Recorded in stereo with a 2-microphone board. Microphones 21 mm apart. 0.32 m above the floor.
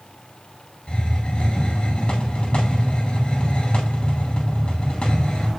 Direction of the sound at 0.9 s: 50° left (ahead or behind).